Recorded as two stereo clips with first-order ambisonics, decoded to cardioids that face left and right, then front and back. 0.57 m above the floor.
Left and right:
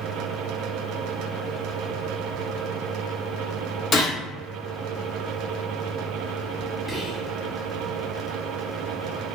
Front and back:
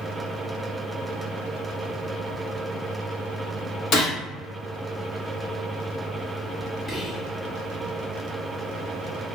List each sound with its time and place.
3.9 s a gunshot: 35° left, 1.3 m
6.9 s whispering: 15° right, 1.0 m